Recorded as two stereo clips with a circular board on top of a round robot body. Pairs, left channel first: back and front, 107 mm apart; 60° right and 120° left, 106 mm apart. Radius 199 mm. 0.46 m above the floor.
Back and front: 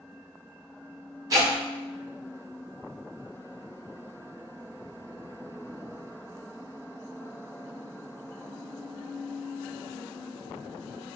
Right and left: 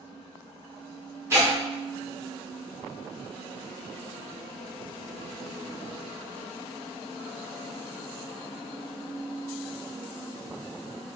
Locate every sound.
1.3 s tearing paper: 55° left, 1.7 m